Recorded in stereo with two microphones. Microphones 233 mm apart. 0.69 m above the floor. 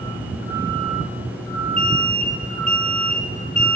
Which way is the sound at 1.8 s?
5° left (ahead or behind).